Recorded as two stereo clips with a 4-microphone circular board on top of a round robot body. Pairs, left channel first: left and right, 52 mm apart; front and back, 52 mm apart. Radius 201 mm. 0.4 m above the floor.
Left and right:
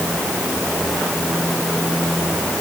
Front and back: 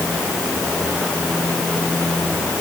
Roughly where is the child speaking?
No child speaking in this recording.